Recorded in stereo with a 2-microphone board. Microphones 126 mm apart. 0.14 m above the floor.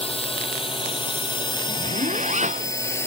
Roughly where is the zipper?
Right.